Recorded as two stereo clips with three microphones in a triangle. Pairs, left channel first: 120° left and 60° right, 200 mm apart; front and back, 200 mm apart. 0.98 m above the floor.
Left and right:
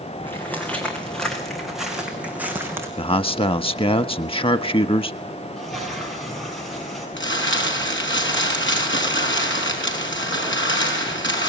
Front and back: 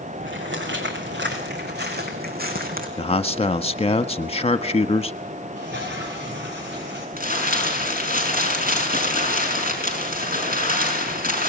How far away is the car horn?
No car horn in this recording.